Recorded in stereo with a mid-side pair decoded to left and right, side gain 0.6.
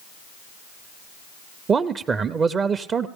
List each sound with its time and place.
1.7 s a man speaking: 35° right, 0.5 m